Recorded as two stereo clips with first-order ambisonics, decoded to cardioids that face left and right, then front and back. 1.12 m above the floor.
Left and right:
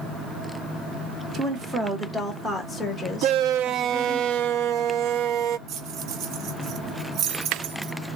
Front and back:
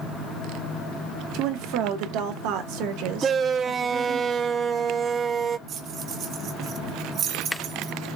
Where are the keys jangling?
130° right, 0.7 m.